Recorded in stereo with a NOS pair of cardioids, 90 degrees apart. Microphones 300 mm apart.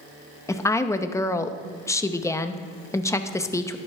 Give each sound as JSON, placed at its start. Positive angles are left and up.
{"t": 0.5, "sound": "a woman speaking", "azimuth_deg": 10, "distance_m": 0.8}